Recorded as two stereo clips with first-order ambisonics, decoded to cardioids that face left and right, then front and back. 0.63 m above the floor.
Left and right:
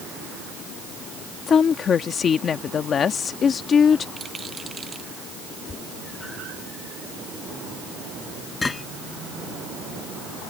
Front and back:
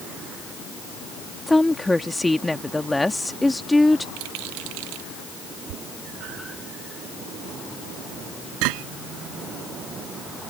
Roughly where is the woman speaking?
Left.